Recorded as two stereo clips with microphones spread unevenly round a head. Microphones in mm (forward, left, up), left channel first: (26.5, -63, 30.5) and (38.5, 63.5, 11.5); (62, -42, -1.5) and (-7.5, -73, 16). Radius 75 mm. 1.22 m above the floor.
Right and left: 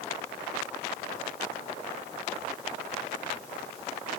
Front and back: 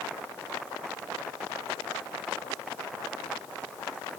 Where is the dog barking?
I don't hear a dog barking.